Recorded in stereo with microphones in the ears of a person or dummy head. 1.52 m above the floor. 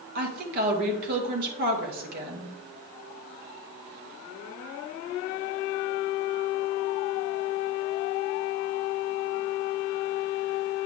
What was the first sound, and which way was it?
A woman speaking, 50° right (ahead or behind).